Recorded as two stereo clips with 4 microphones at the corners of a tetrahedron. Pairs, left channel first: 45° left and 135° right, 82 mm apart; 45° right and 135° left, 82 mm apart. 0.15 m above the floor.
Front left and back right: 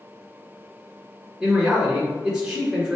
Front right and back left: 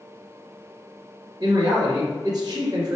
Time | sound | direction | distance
1.4 | a man speaking | 145° left | 1.7 m